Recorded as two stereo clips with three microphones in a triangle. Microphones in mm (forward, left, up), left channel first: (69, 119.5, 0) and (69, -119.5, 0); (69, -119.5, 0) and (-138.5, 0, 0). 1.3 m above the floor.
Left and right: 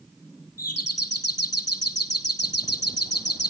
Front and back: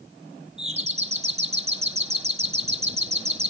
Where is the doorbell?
85° left, 2.5 m.